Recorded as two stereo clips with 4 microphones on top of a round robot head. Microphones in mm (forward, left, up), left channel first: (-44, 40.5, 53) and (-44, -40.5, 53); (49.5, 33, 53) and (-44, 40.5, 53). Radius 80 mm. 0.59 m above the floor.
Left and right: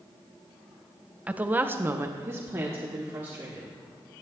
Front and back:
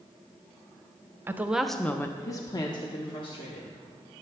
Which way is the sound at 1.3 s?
150° right.